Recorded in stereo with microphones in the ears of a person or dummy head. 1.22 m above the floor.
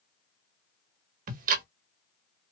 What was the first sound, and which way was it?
Ticking, 50° right (ahead or behind).